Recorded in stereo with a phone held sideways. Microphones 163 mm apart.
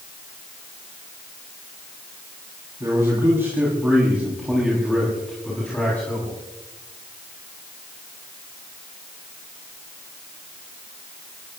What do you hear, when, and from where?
2.8 s a man speaking: 20° right (ahead or behind), 5 m; by 6.4 s 15° left (ahead or behind), 6 m